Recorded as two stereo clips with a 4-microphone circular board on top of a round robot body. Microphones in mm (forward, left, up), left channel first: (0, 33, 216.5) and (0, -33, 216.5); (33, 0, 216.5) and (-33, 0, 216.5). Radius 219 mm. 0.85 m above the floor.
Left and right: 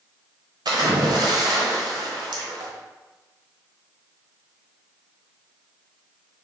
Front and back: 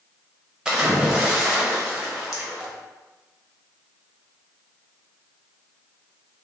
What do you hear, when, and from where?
0.7 s a splash: 100° right, 0.9 m